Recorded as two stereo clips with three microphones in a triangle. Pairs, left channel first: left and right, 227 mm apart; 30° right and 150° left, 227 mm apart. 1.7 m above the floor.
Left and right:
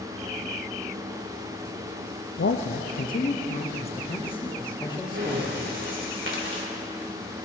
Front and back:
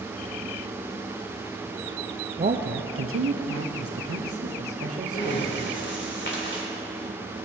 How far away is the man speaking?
About 0.6 m.